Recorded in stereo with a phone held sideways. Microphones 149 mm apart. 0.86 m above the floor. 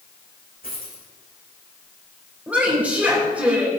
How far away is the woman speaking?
About 4 m.